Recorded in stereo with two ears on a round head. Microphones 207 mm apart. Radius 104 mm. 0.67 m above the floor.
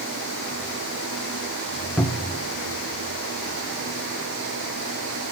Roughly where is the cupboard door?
Centre.